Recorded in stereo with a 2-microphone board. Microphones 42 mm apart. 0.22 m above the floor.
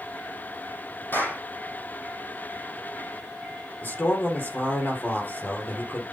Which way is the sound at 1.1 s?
75° left (ahead or behind).